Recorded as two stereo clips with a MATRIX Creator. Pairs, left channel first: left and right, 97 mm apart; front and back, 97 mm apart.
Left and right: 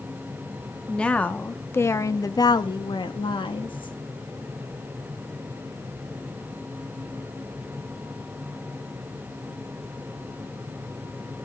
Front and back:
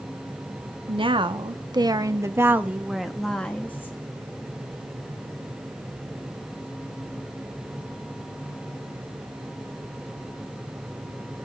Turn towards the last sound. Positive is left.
turn(degrees=65)